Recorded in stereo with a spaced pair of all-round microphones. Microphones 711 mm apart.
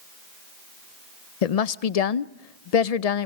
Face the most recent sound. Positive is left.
turn(degrees=60)  # may be behind; listen again after turning